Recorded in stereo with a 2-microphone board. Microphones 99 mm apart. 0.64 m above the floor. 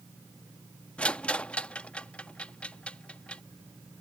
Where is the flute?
I don't hear a flute.